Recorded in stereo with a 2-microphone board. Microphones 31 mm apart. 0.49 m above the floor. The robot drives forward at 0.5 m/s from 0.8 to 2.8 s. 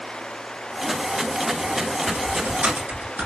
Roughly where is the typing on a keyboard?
Right.